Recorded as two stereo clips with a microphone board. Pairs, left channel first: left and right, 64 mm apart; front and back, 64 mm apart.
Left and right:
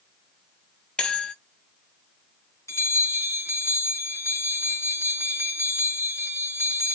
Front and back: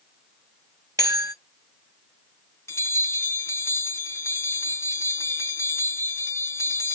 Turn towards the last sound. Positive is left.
turn(degrees=45)